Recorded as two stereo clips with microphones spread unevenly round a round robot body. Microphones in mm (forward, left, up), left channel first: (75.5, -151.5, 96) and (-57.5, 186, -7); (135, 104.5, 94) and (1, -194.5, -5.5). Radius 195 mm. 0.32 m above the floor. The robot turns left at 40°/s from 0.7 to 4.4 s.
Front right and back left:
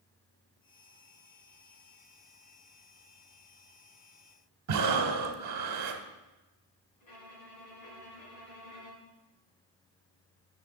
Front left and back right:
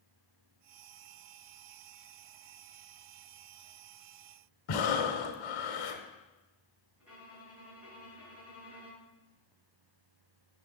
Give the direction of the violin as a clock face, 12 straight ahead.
1 o'clock.